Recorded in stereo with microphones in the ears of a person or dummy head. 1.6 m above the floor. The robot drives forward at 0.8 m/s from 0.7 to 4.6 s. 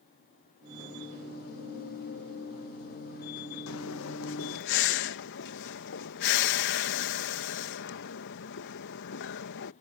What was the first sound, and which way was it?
Breathing, 85° left.